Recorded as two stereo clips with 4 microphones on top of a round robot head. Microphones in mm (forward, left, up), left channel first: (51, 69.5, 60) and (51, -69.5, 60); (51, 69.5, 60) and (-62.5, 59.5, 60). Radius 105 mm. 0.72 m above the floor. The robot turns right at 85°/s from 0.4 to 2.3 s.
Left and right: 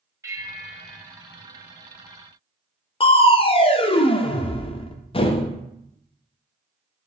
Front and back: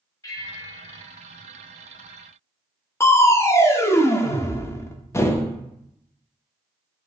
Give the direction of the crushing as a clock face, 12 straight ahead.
10 o'clock.